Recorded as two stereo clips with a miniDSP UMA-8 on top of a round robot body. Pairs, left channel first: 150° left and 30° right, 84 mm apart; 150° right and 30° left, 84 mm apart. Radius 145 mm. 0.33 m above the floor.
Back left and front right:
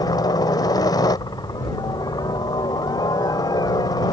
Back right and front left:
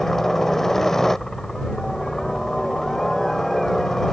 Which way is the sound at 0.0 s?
125° left.